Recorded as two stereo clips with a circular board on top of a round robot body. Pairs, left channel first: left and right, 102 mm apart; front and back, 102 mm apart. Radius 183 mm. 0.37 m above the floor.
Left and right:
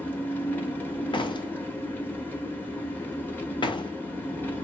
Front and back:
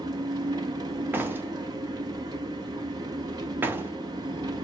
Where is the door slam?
115° left, 0.7 m.